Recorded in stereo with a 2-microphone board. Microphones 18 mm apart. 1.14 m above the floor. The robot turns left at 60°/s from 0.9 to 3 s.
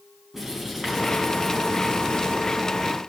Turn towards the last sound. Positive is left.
turn(degrees=65)